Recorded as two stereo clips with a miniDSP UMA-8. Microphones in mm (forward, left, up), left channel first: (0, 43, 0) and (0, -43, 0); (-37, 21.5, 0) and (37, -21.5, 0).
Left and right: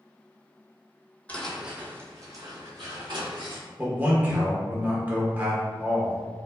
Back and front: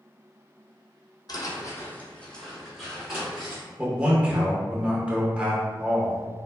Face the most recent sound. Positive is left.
turn(degrees=-80)